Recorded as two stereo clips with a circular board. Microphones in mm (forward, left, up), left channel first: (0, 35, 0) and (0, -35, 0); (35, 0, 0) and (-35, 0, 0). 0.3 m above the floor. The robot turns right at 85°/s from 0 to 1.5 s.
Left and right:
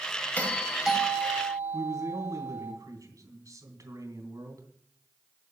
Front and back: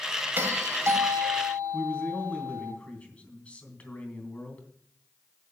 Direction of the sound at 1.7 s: 70° right.